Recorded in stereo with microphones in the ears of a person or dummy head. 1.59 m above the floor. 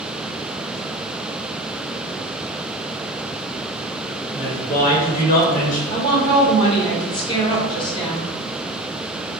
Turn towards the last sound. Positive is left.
turn(degrees=30)  # may be behind; listen again after turning